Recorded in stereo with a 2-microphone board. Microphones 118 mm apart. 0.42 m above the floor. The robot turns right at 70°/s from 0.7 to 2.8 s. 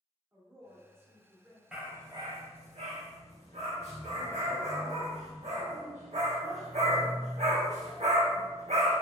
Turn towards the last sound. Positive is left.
turn(degrees=-75)  # may be behind; listen again after turning